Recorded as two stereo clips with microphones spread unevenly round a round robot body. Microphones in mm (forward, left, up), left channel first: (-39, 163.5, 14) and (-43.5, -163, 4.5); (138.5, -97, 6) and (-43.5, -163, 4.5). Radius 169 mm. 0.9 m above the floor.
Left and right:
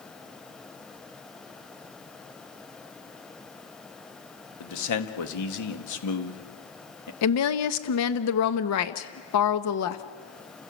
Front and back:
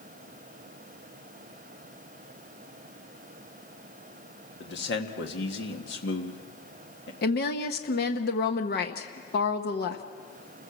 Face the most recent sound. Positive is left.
turn(degrees=55)